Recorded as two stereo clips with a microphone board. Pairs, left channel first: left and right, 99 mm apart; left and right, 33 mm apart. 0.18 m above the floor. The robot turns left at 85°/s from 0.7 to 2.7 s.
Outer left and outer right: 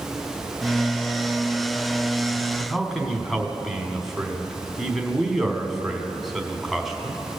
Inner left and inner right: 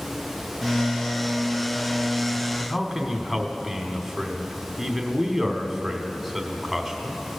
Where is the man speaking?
5° right (ahead or behind), 1.1 m; by 7.4 s centre (ahead or behind), 1.1 m.